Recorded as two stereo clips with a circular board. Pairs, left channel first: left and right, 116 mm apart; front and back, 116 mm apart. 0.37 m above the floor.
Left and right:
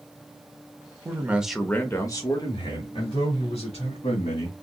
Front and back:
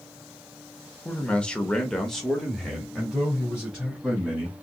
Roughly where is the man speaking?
Ahead right.